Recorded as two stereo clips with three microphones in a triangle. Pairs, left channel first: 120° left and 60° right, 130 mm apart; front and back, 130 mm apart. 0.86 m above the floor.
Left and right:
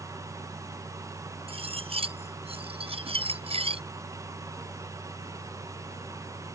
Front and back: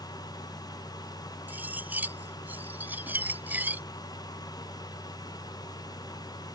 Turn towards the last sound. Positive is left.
turn(degrees=-105)